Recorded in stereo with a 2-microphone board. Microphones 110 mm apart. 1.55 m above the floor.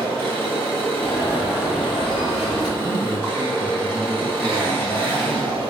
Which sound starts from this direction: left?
An alarm, at 1.0 s.